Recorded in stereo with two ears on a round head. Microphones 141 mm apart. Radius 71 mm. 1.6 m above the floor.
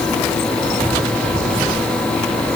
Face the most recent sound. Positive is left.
No sound to turn to.